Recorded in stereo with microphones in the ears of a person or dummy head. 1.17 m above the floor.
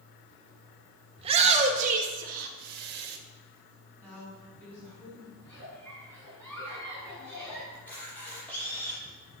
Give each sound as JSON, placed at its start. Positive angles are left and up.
{"t": 1.2, "sound": "a shout", "side_deg": -30, "distance_m": 2.0}
{"t": 4.0, "sound": "a woman speaking", "side_deg": 10, "distance_m": 6.5}
{"t": 5.4, "sound": "a giggle", "side_deg": 10, "distance_m": 6.0}
{"t": 7.7, "sound": "a camera shutter", "side_deg": 10, "distance_m": 6.5}